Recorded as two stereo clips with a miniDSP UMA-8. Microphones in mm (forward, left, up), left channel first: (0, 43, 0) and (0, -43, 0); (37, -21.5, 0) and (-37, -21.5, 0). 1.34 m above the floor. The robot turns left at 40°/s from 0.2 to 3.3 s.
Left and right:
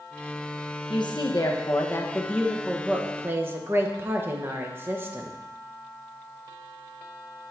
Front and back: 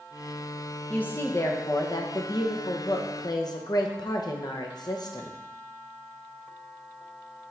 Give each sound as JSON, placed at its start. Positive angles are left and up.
{"t": 0.9, "sound": "a woman speaking", "azimuth_deg": 70, "distance_m": 0.9}